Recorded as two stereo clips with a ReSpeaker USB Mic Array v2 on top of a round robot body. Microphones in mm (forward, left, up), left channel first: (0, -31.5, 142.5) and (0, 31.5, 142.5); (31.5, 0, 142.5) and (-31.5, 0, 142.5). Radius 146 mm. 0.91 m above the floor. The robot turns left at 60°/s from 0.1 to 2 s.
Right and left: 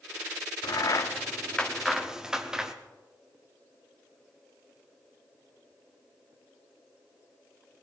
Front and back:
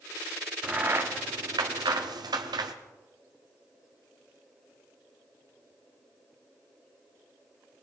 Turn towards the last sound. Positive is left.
turn(degrees=170)